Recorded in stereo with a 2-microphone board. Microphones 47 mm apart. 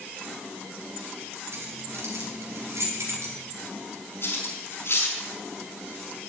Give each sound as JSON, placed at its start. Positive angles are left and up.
{"t": 1.5, "sound": "keys jangling", "side_deg": -75, "distance_m": 5.5}
{"t": 4.2, "sound": "cutlery clinking", "side_deg": 60, "distance_m": 5.0}